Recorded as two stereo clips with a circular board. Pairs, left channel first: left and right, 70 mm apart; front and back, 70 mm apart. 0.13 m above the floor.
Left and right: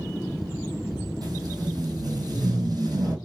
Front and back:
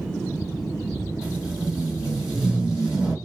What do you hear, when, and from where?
1.2 s tape being pulled: 100° right, 1.3 m